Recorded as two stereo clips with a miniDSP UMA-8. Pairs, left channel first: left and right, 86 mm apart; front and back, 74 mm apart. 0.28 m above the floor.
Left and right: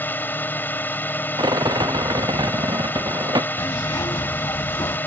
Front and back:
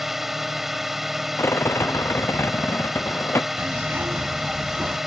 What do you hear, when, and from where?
0.0 s a drone: 100° left
1.4 s a rattle: 55° right
3.6 s a zipper: 120° left